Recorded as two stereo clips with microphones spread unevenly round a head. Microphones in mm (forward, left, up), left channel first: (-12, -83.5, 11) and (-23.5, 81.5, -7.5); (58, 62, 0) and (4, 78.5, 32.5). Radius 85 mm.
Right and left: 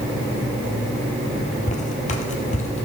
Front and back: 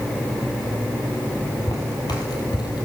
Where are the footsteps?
90° right, 1.9 m; by 2.8 s 50° right, 2 m.